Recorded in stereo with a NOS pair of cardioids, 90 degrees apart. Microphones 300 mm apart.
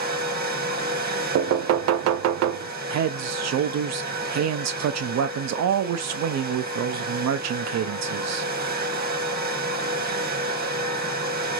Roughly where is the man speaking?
Ahead right.